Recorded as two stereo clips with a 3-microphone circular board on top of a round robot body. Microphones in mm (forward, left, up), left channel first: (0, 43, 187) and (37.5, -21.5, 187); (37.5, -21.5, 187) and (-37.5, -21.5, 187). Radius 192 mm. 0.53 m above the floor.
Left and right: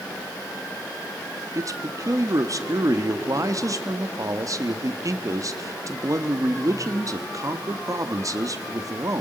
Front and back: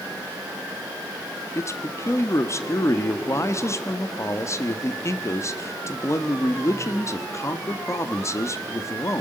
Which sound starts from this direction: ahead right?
A man speaking, at 1.6 s.